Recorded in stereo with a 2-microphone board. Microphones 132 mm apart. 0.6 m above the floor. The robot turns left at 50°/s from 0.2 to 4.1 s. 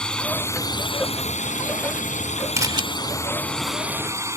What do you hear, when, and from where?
0.0 s a drone: 175° left; by 4.4 s 20° right
2.6 s a camera shutter: 25° right (ahead or behind); by 2.8 s 35° right (ahead or behind)